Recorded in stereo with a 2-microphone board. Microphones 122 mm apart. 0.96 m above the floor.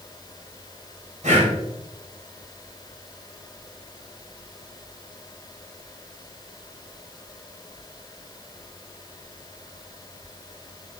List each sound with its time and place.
1.2 s breathing: 80° right, 2.5 m